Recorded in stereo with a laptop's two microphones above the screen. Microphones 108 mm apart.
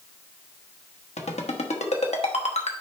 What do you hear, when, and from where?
1.2 s a ringtone: 85° left, 1.2 m